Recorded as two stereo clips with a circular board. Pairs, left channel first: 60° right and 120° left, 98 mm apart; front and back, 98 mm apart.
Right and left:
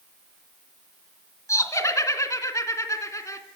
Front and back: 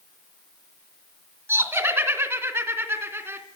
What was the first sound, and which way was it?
Laughter, 115° right.